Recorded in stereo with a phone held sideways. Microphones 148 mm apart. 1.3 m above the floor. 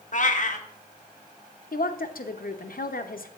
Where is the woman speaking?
75° left (ahead or behind), 0.7 m.